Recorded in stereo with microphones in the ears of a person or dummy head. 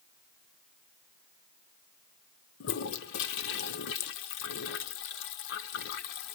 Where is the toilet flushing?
65° left (ahead or behind), 1.0 m.